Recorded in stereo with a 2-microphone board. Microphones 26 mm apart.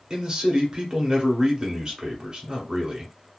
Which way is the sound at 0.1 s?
35° right (ahead or behind).